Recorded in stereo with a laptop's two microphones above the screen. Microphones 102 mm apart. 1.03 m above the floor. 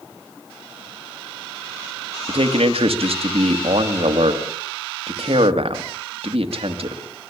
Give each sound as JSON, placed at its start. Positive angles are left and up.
{"t": 2.3, "sound": "a man speaking", "side_deg": -70, "distance_m": 2.5}